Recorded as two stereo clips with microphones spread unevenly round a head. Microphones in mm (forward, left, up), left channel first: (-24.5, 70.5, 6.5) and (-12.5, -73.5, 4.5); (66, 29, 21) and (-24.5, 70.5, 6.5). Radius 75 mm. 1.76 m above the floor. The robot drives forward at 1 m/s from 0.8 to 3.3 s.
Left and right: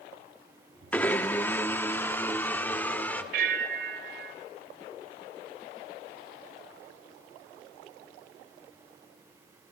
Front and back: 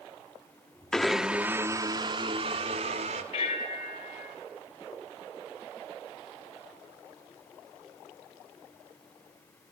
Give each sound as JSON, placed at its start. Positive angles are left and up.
{"t": 0.9, "sound": "a blender", "azimuth_deg": 30, "distance_m": 1.3}
{"t": 3.3, "sound": "a bell", "azimuth_deg": -60, "distance_m": 3.0}